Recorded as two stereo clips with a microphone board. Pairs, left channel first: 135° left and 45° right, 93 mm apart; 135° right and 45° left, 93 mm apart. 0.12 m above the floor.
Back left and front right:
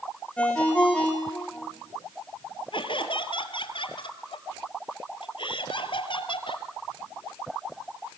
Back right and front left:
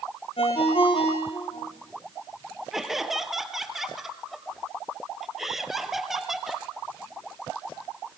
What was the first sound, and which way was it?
A ringtone, 145° right.